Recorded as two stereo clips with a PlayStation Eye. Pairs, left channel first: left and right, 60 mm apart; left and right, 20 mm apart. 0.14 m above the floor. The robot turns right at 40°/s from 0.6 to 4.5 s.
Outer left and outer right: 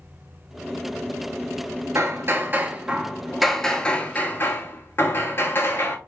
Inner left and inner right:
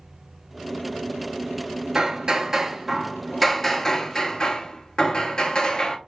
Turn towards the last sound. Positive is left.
turn(degrees=45)